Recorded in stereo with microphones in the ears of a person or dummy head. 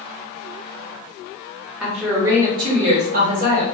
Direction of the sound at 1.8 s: Centre (ahead or behind).